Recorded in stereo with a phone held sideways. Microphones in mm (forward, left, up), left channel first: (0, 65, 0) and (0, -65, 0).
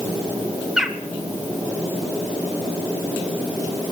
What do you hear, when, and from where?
0.8 s a bird: 5° right (ahead or behind), 1.0 m